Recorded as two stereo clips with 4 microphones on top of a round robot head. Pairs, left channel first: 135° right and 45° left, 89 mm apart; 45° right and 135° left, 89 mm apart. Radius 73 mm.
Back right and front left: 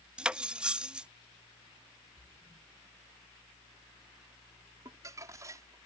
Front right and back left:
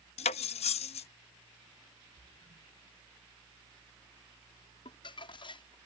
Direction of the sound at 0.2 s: 35° right.